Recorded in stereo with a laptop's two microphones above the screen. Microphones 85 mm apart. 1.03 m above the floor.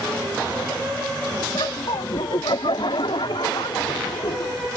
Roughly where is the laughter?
Left.